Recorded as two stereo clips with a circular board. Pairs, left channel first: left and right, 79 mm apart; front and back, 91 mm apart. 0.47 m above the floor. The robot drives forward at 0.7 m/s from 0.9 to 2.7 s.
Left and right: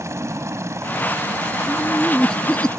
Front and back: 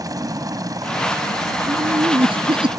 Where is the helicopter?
135° right; by 2.8 s 140° right.